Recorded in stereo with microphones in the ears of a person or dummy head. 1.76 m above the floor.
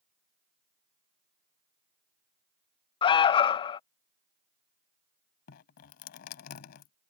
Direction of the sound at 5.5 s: 50° left (ahead or behind).